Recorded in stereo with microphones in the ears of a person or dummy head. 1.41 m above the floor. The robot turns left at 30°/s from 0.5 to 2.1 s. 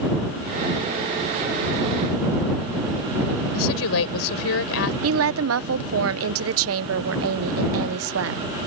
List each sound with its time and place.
3.5 s a woman speaking: 85° left
5.0 s a woman speaking: 75° right (ahead or behind)